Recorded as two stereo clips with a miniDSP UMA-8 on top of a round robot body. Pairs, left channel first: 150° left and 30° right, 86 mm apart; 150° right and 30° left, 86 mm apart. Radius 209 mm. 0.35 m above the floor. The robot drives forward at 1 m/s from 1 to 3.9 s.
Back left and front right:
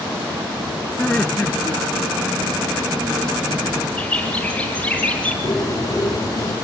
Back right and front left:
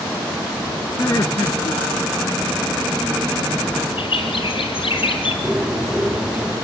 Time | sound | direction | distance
1.0 | laughter | 130° right | 1.1 m
4.0 | a bird | 135° right | 4 m
5.4 | a bird | 110° left | 2.5 m